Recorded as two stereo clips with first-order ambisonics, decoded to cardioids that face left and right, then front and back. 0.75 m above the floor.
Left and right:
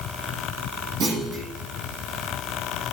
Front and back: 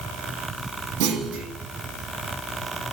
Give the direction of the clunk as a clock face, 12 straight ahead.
5 o'clock.